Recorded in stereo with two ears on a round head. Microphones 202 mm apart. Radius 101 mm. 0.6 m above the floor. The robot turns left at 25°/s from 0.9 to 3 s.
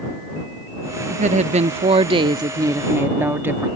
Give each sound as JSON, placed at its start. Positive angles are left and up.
{"t": 1.1, "sound": "a woman speaking", "azimuth_deg": -115}